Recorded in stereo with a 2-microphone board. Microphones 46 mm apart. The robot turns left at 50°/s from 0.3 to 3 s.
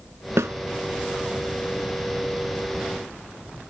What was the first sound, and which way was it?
A snare drum, 85° right.